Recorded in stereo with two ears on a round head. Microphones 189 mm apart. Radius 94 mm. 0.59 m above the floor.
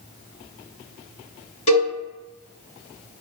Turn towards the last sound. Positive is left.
turn(degrees=35)  # may be behind; listen again after turning